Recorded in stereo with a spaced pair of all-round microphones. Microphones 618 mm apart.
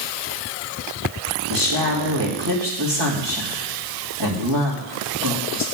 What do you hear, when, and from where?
1.5 s a woman speaking: 40° right (ahead or behind), 2 m